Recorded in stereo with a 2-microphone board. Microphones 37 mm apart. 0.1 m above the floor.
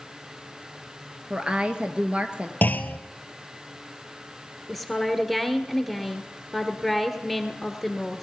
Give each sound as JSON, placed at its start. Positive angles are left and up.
{"t": 1.3, "sound": "a woman speaking", "side_deg": -25, "distance_m": 1.2}
{"t": 2.6, "sound": "a clunk", "side_deg": 60, "distance_m": 0.9}
{"t": 4.7, "sound": "a woman speaking", "side_deg": 5, "distance_m": 1.5}